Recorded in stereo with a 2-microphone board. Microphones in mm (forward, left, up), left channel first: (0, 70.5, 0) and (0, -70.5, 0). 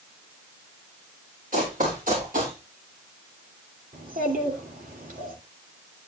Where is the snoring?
I don't hear snoring.